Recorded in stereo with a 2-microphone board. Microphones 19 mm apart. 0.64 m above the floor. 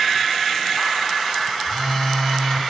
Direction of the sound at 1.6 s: 70° left (ahead or behind).